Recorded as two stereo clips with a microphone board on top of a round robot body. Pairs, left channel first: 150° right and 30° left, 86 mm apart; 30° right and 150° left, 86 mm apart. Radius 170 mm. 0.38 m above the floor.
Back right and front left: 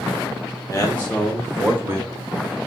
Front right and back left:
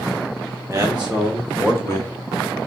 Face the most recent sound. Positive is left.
turn(degrees=-5)